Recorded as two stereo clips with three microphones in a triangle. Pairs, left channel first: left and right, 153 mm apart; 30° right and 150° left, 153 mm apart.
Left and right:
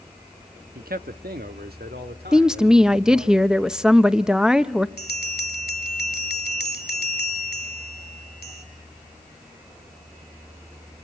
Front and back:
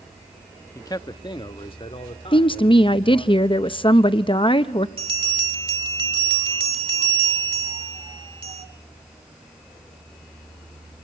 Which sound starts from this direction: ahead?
A woman speaking, at 2.3 s.